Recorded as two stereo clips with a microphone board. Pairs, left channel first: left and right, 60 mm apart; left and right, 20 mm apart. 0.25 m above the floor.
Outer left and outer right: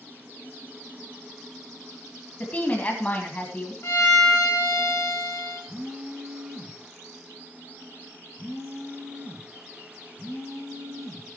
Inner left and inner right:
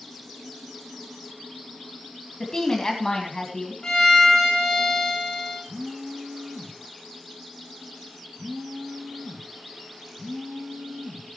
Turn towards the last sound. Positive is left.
turn(degrees=-10)  # may be behind; listen again after turning